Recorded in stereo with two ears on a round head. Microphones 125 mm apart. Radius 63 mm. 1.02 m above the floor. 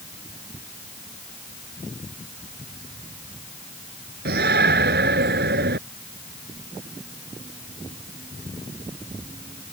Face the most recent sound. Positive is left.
turn(degrees=-85)